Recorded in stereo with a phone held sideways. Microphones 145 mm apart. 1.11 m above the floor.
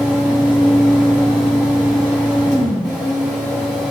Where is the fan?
5° right (ahead or behind), 1.1 m.